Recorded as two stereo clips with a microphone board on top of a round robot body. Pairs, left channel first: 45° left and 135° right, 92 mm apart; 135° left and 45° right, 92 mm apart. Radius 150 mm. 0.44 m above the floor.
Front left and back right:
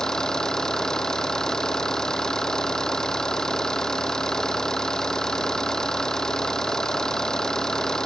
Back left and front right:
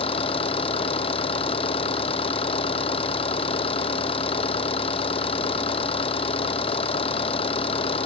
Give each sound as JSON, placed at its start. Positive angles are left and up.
{"t": 0.0, "sound": "an engine running", "azimuth_deg": 130}